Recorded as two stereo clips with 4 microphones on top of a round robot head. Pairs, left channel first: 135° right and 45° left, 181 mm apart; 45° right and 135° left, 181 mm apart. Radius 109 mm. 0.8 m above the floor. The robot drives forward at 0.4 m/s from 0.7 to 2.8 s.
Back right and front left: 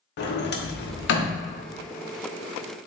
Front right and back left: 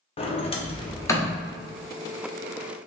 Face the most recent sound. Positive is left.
turn(degrees=-150)